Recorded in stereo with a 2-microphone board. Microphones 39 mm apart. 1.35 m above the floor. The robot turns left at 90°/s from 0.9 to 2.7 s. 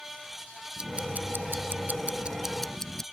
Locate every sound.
0.8 s ticking: 30° right; by 3.0 s 170° left